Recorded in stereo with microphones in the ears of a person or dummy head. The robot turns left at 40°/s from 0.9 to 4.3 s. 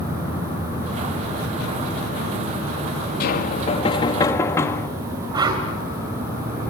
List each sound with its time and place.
3.2 s knocking: 60° left, 1.3 m; by 4.9 s 15° left, 1.3 m
5.3 s a whoosh: 25° right (ahead or behind), 3 m